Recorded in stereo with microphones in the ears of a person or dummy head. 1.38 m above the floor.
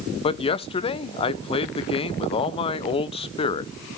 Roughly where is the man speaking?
Left.